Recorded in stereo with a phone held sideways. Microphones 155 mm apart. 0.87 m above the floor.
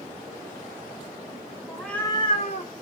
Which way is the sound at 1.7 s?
10° right (ahead or behind).